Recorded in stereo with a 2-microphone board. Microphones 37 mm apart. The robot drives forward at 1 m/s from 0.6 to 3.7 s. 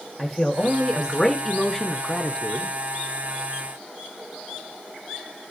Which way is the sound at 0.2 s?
5° left (ahead or behind).